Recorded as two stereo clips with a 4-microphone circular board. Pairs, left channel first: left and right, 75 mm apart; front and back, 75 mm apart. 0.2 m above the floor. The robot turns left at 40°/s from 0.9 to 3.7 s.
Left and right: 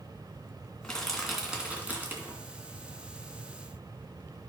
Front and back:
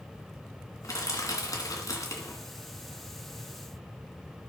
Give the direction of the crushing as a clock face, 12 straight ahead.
12 o'clock.